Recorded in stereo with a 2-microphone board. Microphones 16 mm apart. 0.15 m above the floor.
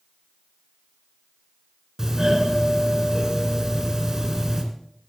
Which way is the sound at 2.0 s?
35° right (ahead or behind).